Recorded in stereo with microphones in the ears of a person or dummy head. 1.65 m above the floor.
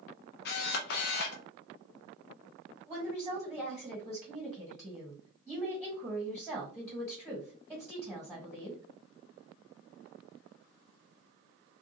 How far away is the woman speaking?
About 1.3 m.